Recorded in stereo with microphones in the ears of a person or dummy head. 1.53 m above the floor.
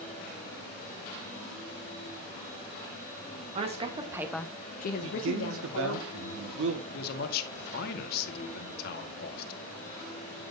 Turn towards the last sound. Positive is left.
turn(degrees=60)  # may be behind; listen again after turning